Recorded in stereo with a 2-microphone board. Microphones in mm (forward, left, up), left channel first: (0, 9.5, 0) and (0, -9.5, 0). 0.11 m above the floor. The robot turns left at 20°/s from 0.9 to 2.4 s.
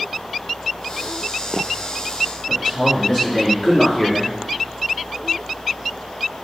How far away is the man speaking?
About 1.2 m.